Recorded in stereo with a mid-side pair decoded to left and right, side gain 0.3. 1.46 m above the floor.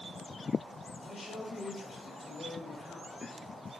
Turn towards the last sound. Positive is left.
turn(degrees=50)